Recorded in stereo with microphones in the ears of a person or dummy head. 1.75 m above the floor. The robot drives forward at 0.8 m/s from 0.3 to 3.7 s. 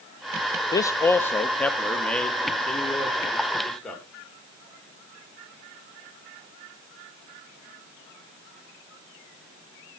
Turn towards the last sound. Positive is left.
turn(degrees=5)  # may be behind; listen again after turning